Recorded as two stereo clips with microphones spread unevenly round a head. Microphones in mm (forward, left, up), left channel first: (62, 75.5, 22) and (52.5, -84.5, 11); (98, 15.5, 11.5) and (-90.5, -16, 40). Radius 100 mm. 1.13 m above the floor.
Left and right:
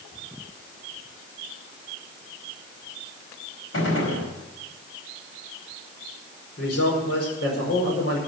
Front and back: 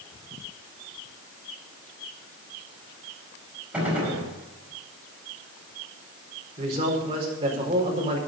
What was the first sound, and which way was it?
A gunshot, 110° left.